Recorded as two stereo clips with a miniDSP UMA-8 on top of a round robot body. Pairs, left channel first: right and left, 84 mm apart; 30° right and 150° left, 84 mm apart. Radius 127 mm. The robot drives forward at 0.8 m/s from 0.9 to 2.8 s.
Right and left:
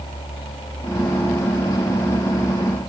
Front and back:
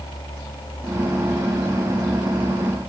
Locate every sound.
Only background noise.